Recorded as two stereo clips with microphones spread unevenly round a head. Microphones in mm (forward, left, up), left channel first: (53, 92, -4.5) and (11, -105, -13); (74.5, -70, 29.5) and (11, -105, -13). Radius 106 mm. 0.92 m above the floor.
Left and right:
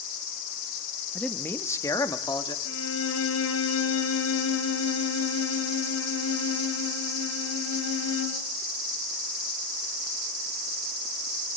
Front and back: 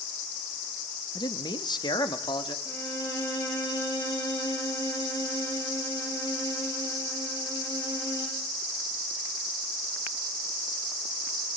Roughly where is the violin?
Left.